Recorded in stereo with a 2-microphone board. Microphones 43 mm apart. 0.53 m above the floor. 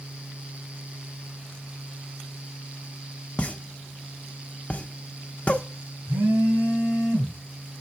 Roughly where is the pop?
Left.